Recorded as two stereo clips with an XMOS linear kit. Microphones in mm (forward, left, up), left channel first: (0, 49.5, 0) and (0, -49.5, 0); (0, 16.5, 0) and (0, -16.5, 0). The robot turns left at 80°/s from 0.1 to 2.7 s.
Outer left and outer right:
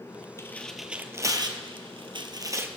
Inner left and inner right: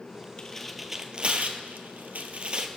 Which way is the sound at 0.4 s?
30° left (ahead or behind).